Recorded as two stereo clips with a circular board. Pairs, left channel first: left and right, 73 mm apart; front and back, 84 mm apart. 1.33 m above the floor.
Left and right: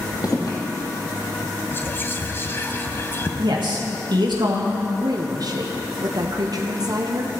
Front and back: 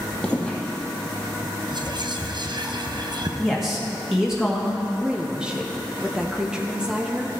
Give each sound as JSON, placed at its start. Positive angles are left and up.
{"t": 0.2, "sound": "footsteps", "azimuth_deg": 80, "distance_m": 2.5}
{"t": 1.7, "sound": "whispering", "azimuth_deg": 150, "distance_m": 0.9}
{"t": 3.4, "sound": "a man speaking", "azimuth_deg": -95, "distance_m": 1.6}
{"t": 5.0, "sound": "a woman speaking", "azimuth_deg": -100, "distance_m": 0.8}